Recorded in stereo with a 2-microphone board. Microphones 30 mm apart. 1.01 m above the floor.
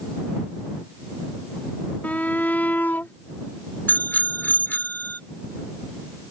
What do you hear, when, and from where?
2.0 s a shout: 65° left (ahead or behind); by 3.1 s 75° left (ahead or behind)
3.9 s a bicycle bell: 80° left